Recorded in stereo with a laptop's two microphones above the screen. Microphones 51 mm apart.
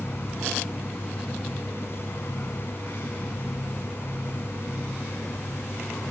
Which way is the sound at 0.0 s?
50° left (ahead or behind).